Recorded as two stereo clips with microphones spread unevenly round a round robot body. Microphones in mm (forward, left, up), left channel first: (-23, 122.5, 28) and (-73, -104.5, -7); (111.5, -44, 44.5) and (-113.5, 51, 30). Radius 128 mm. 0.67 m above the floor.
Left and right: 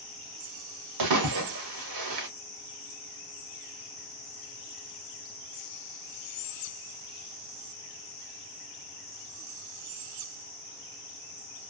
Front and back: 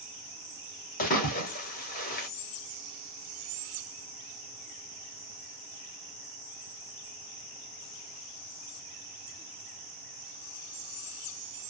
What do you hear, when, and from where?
1.0 s a splash: 80° right, 0.7 m